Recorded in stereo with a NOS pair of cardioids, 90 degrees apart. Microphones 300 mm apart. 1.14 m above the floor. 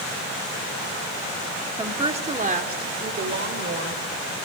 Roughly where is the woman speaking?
Ahead.